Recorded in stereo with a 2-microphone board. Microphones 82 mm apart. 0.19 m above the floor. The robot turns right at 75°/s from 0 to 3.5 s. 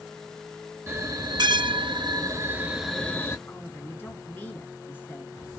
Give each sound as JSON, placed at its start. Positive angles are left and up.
{"t": 0.9, "sound": "a bell", "azimuth_deg": -150, "distance_m": 0.6}
{"t": 3.5, "sound": "a woman speaking", "side_deg": 25, "distance_m": 2.0}